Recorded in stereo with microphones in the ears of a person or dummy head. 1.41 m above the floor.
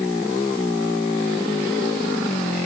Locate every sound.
Only background noise.